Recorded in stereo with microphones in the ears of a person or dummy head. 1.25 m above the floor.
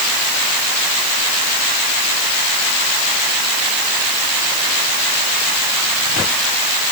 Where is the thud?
No thud in this recording.